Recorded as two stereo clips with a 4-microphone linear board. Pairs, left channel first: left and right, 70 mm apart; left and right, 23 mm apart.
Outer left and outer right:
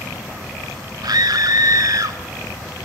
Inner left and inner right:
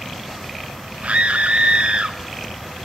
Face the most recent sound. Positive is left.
turn(degrees=-55)  # may be behind; listen again after turning